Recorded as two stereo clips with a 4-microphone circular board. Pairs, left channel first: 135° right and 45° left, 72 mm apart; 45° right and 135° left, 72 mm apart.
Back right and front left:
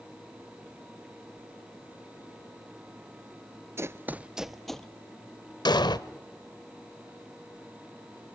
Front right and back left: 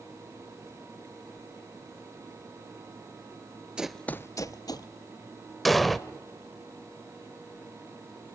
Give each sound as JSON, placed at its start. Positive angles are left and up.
{"t": 3.8, "sound": "running footsteps", "azimuth_deg": 65, "distance_m": 0.6}
{"t": 5.7, "sound": "an explosion", "azimuth_deg": -135, "distance_m": 0.8}